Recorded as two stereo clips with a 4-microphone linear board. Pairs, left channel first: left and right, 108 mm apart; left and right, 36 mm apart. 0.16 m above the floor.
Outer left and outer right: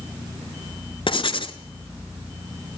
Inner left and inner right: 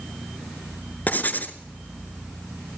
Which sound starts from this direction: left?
Writing, at 1.1 s.